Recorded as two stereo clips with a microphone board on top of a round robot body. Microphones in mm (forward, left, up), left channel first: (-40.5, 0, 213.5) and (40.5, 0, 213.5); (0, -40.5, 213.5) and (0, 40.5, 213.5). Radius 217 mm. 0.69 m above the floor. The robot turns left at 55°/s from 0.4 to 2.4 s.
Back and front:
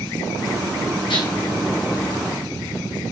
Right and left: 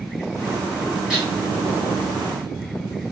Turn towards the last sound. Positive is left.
turn(degrees=100)